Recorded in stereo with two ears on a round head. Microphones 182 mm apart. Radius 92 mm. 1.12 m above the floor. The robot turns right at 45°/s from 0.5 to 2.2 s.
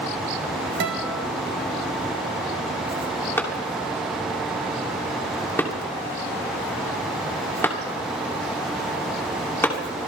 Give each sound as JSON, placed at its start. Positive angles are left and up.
{"t": 0.8, "sound": "a guitar", "side_deg": -65, "distance_m": 3.0}
{"t": 3.4, "sound": "a clap", "side_deg": 10, "distance_m": 2.5}